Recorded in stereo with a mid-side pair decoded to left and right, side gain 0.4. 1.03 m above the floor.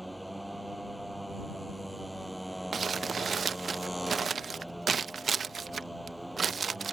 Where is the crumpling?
45° right.